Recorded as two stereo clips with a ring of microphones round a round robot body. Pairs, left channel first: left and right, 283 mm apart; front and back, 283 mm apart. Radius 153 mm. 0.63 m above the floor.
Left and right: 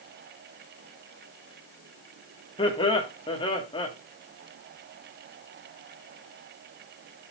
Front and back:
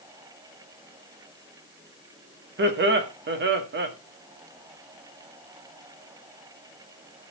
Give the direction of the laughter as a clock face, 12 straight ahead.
7 o'clock.